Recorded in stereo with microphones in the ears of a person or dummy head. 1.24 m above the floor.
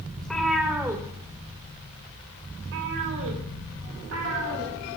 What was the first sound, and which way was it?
A cat meowing, 5° left (ahead or behind).